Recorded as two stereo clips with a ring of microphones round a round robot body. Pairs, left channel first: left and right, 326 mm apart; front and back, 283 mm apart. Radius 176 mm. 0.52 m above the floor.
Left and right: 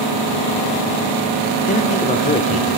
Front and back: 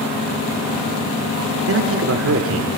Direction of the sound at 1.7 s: 155° left.